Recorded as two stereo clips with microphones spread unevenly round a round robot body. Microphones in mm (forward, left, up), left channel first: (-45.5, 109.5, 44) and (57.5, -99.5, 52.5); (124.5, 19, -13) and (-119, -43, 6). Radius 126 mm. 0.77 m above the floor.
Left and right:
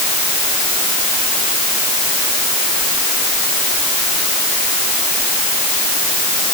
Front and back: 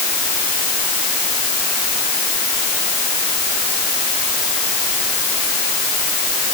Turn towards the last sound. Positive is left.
No sound to turn to.